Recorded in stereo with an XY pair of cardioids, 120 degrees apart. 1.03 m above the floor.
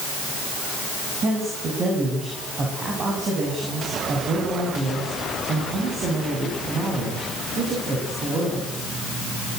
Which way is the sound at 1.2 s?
40° right.